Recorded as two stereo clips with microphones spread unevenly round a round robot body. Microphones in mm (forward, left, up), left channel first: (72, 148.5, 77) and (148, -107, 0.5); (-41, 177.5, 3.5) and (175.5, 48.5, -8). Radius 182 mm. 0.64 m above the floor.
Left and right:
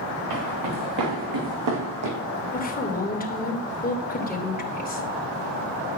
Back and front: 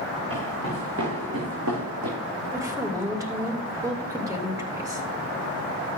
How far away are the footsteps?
About 4.5 m.